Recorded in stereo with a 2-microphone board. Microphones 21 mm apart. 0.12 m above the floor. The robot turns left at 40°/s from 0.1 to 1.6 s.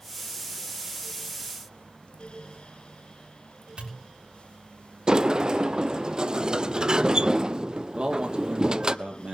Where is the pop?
50° right (ahead or behind), 6.5 m.